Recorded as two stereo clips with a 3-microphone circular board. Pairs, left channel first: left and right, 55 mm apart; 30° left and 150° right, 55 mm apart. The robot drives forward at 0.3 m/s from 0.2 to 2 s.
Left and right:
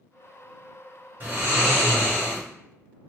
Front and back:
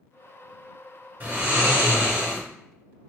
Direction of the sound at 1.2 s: 110° right.